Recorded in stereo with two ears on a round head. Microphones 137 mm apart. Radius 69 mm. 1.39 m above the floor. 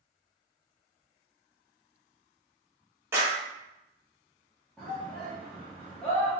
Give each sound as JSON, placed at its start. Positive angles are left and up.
{"t": 3.1, "sound": "a clap", "side_deg": -20, "distance_m": 1.5}
{"t": 4.8, "sound": "a shout", "side_deg": 5, "distance_m": 1.2}